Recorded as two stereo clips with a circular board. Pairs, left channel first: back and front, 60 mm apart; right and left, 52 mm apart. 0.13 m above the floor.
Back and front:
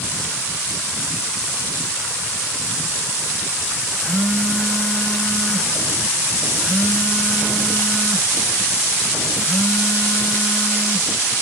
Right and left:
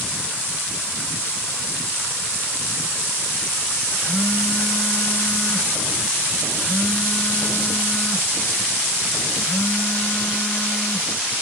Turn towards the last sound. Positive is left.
turn(degrees=-90)